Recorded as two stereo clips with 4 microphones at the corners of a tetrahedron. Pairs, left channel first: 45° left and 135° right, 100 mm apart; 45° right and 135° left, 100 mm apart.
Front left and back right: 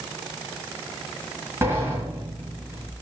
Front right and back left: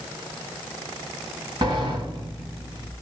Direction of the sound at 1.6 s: 165° left.